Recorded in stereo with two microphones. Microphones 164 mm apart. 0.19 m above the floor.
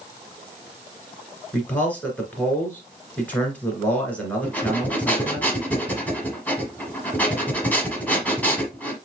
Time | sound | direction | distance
1.5 | a man speaking | 10° left (ahead or behind) | 2 m
4.4 | breathing | 10° left (ahead or behind) | 1.2 m